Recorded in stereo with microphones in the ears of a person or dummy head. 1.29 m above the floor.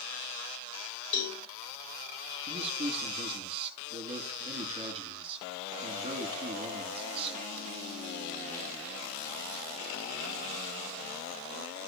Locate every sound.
1.1 s a cowbell: 70° left (ahead or behind), 4.5 m
2.5 s a man speaking: 25° right (ahead or behind), 1.9 m